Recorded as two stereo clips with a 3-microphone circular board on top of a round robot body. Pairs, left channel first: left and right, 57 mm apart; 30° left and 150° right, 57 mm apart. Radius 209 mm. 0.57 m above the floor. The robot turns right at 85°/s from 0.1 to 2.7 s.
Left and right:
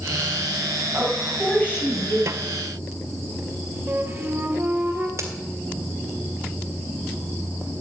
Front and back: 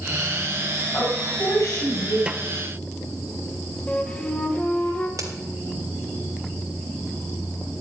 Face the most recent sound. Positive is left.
turn(degrees=-130)